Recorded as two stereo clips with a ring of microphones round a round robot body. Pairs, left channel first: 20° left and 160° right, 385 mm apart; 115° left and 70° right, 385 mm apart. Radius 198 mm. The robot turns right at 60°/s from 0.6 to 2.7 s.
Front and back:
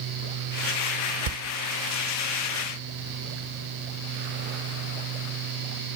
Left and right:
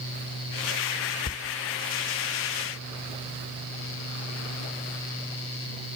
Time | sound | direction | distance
1.3 | a door slam | 170° right | 0.6 m